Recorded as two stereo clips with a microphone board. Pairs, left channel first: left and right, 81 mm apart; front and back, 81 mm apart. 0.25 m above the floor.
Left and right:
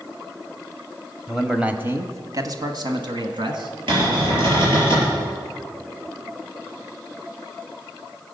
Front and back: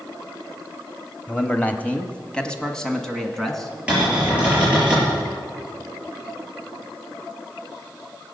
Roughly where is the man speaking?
Ahead.